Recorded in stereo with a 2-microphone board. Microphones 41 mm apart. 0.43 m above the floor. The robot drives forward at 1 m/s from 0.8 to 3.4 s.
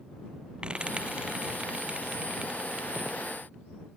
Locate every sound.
0.6 s frying: 25° right (ahead or behind); by 3.3 s 20° right (ahead or behind)